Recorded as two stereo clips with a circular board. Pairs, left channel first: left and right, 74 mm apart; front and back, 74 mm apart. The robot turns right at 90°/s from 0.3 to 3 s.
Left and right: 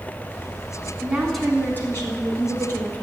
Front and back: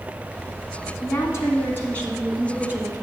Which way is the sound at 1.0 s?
25° right.